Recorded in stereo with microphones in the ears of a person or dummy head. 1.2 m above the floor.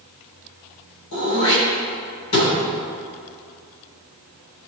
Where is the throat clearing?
80° left, 4 m.